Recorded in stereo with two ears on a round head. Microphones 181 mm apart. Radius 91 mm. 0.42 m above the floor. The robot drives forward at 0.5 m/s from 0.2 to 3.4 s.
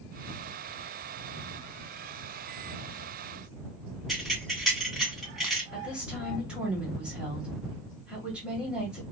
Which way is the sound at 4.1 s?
Centre (ahead or behind).